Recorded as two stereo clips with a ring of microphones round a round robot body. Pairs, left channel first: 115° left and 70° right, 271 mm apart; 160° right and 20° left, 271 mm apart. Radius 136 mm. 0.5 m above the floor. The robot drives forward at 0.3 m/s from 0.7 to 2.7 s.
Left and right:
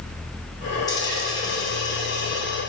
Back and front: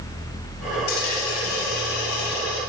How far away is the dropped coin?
About 4 m.